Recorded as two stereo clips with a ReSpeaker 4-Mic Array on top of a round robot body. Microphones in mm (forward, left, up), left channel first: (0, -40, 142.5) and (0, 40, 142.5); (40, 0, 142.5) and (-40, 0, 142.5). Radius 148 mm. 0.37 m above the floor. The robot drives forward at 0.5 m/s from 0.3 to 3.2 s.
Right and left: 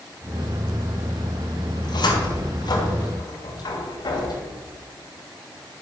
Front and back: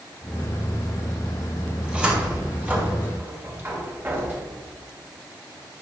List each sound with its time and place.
1.8 s a cupboard door: 100° right, 2.5 m; by 4.6 s 115° right, 3 m